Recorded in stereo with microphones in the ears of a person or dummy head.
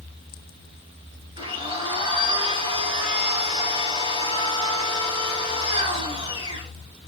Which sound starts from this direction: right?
A blender, at 1.4 s.